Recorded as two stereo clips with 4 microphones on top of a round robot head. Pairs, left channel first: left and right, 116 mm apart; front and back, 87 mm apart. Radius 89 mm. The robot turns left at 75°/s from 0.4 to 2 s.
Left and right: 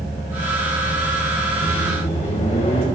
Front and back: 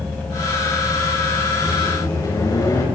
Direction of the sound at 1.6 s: 70° left.